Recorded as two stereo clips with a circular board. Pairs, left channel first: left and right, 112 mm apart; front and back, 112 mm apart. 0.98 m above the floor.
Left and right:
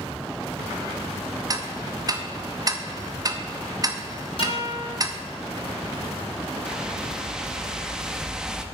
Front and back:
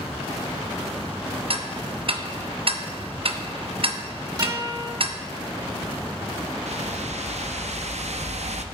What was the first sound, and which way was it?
Ticking, 145° right.